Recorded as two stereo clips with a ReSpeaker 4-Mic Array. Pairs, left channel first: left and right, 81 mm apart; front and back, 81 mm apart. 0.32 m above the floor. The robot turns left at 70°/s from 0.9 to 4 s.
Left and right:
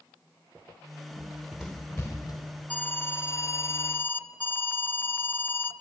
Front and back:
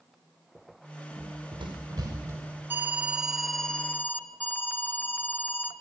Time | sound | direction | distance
1.1 | running footsteps | 135° right | 4 m
2.7 | an alarm | 140° left | 1.1 m